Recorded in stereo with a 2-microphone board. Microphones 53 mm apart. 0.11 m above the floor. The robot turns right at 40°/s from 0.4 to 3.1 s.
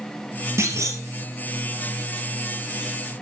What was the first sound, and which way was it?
A clunk, 55° right (ahead or behind).